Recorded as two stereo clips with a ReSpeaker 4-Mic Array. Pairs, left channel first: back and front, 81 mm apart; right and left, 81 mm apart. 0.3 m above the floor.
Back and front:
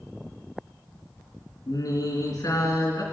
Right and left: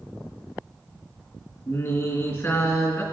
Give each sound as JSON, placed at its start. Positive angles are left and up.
{"t": 1.7, "sound": "singing", "azimuth_deg": -145, "distance_m": 3.0}